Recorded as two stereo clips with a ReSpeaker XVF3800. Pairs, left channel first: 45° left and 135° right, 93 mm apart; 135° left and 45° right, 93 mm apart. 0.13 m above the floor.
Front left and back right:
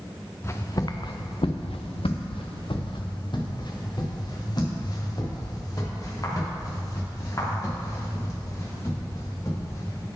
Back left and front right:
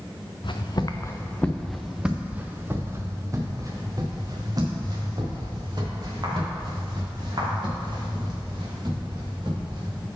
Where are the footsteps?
105° left, 1.1 m; by 10.1 s 10° right, 7 m.